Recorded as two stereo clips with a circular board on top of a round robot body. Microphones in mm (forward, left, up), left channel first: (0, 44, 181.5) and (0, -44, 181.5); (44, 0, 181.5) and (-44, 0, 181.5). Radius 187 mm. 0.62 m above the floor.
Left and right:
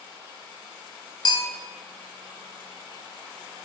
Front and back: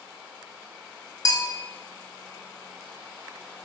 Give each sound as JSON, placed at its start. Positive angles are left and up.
{"t": 1.2, "sound": "a bell", "azimuth_deg": 50, "distance_m": 1.0}